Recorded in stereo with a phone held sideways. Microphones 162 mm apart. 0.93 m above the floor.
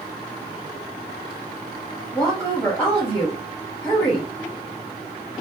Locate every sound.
2.1 s a woman speaking: 10° left (ahead or behind), 0.9 m